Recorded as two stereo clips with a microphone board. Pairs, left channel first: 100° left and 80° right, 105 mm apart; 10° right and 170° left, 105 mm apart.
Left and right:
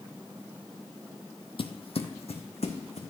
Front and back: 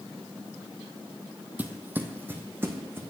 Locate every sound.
1.6 s footsteps: 100° left, 0.5 m